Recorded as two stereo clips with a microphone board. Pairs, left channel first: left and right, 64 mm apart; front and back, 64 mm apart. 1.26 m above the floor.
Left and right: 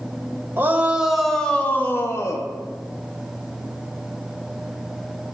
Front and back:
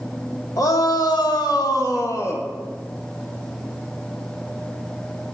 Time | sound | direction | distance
0.6 | a shout | 30° right | 1.7 m